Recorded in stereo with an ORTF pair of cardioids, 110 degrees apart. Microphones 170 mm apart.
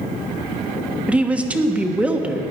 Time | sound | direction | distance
1.1 | a woman speaking | 10° right | 1.3 m